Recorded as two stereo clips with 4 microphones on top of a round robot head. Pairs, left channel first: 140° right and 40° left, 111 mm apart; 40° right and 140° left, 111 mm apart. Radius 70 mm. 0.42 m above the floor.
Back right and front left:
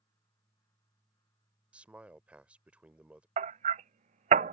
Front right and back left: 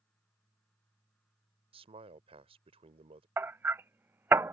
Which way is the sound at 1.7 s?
120° left.